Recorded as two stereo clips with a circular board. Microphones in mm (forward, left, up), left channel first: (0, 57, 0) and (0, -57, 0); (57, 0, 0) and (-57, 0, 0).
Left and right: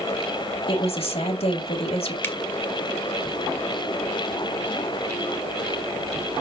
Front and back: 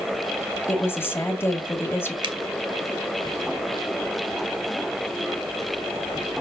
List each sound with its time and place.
0.7 s a woman speaking: 70° left, 2 m
2.2 s a finger snap: 155° left, 1.5 m